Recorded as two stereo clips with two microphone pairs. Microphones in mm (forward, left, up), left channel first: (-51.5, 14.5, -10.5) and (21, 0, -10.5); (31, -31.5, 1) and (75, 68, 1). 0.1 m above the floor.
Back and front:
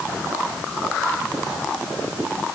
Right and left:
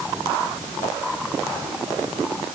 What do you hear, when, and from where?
Only background noise.